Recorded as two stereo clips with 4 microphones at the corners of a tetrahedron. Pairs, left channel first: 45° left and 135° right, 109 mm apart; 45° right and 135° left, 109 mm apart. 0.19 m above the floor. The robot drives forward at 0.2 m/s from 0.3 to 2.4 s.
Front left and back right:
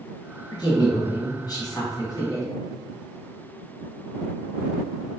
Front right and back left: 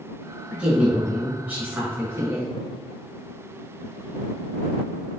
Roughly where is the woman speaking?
Ahead left.